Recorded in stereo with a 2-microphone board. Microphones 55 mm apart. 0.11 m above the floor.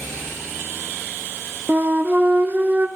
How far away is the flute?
About 1.2 m.